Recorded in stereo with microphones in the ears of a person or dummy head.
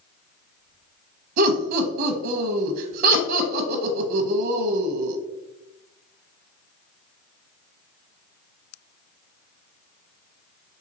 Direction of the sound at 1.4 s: 50° right (ahead or behind).